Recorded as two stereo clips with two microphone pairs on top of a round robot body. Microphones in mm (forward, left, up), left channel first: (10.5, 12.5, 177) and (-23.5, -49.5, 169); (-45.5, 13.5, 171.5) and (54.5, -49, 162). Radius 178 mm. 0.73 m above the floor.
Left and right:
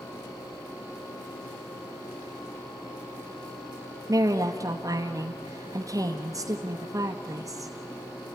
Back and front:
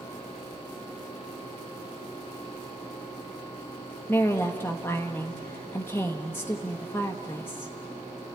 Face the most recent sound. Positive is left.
turn(degrees=-140)